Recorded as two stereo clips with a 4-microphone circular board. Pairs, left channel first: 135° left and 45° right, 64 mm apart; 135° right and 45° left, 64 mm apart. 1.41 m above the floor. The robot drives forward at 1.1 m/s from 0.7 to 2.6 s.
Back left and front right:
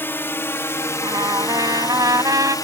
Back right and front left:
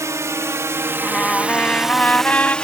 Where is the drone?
80° left; by 2.7 s 150° left.